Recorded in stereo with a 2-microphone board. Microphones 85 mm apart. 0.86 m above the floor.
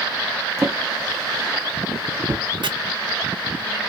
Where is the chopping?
65° right (ahead or behind), 0.6 m.